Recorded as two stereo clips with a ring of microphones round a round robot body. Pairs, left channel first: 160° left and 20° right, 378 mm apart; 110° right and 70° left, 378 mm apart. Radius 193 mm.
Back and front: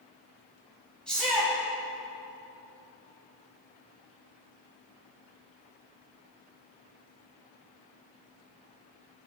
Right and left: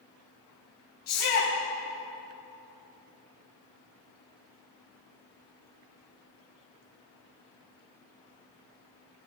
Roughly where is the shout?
Behind right.